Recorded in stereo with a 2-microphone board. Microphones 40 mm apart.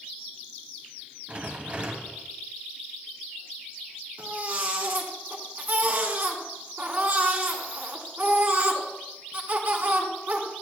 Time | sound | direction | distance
1.3 | a rattle | 35° right (ahead or behind) | 1.1 m
4.2 | a baby crying | 50° right (ahead or behind) | 1.6 m